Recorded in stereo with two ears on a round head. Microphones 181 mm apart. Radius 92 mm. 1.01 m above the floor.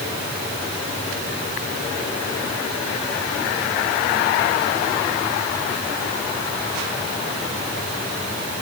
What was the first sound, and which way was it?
Only background noise.